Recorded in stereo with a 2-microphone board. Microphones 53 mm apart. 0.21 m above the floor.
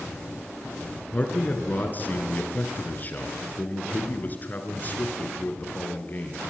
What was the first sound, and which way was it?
A man speaking, 35° left (ahead or behind).